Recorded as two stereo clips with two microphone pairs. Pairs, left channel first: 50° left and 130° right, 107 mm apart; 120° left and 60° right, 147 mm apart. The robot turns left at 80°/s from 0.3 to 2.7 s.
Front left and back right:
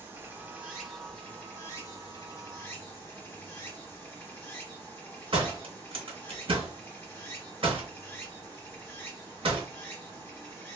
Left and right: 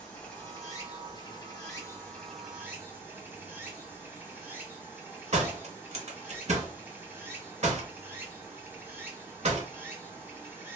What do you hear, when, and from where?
0.0 s running water: 170° right, 0.9 m; by 10.8 s straight ahead, 0.9 m
5.3 s a door slam: 100° right, 0.7 m